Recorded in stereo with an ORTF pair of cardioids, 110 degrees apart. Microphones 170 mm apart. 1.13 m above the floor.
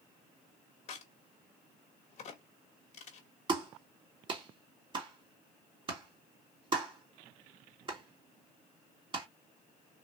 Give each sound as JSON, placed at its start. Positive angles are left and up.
{"t": 0.9, "sound": "a crack", "azimuth_deg": 45, "distance_m": 1.7}
{"t": 3.5, "sound": "a clap", "azimuth_deg": -30, "distance_m": 2.5}